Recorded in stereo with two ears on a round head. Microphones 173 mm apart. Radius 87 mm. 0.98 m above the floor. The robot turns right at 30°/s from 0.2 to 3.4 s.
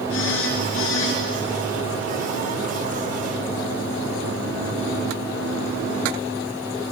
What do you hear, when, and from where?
0.1 s a phone buzzing: 80° left, 4.5 m; by 1.2 s 65° left (ahead or behind), 4.5 m